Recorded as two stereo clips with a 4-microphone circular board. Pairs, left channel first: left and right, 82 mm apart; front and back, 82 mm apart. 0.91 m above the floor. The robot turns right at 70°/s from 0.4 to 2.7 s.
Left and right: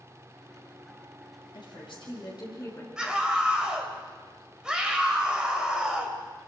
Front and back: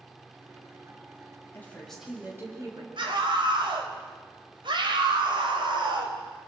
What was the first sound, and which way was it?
A woman speaking, 60° left.